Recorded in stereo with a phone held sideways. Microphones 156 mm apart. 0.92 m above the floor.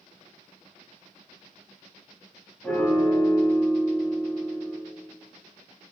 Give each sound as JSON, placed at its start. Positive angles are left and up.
{"t": 2.6, "sound": "a piano", "side_deg": 10, "distance_m": 1.1}